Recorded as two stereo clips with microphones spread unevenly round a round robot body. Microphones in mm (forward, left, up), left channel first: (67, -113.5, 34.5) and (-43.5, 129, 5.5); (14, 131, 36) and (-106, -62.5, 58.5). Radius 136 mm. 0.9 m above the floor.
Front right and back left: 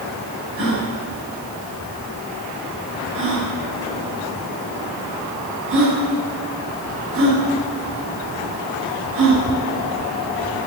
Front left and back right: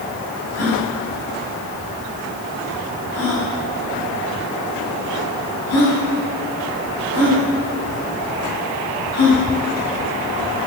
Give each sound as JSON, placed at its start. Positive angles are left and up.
{"t": 0.6, "sound": "a gasp", "azimuth_deg": 70, "distance_m": 8.0}